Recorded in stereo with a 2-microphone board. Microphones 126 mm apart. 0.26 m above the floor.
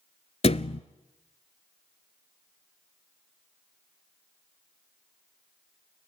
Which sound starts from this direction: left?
A thud, at 0.4 s.